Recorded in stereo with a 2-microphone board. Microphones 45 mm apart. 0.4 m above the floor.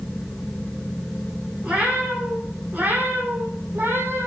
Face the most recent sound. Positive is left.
turn(degrees=-65)  # may be behind; listen again after turning